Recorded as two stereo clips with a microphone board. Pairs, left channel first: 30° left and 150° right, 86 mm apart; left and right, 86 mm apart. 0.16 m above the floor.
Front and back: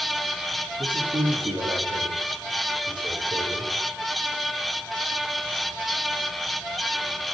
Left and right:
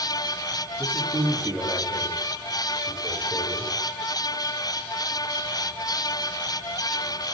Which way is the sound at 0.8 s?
165° right.